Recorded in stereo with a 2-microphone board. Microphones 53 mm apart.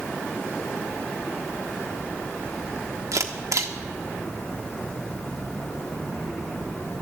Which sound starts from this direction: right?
A camera shutter, at 3.1 s.